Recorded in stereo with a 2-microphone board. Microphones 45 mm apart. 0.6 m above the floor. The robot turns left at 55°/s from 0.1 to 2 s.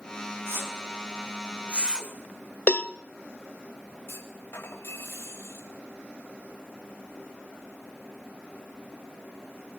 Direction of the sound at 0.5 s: 65° right (ahead or behind).